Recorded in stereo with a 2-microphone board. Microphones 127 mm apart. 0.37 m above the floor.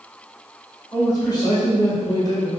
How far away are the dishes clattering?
I don't hear dishes clattering.